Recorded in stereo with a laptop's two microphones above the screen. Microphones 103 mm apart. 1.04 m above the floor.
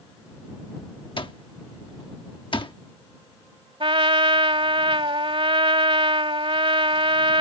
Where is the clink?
No clink in this recording.